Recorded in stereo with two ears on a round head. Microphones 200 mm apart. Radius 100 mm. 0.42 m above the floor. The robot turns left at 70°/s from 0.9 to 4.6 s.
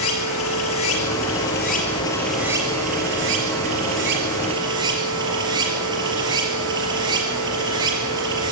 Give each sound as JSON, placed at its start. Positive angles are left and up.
{"t": 0.0, "sound": "running water", "azimuth_deg": 100, "distance_m": 4.0}